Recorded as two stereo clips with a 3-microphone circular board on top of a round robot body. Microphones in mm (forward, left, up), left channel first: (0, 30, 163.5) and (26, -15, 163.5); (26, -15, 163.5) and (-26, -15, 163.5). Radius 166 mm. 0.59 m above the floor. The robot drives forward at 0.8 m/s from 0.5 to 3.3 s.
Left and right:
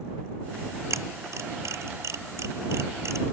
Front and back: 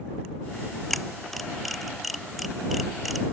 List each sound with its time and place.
0.9 s a camera shutter: 85° right; by 3.3 s 90° right